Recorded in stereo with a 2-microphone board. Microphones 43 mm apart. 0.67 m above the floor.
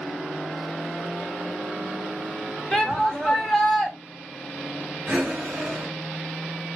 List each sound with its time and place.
2.7 s a shout: 10° left (ahead or behind), 2.5 m
5.1 s breathing: 15° right (ahead or behind), 4.5 m